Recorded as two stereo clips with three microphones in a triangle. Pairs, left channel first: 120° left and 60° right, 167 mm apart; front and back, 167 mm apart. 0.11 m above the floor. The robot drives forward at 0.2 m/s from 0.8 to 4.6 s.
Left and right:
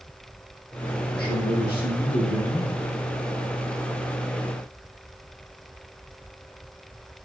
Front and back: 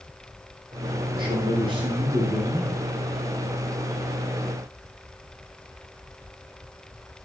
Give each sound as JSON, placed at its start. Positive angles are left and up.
{"t": 1.1, "sound": "a man speaking", "azimuth_deg": 120, "distance_m": 3.5}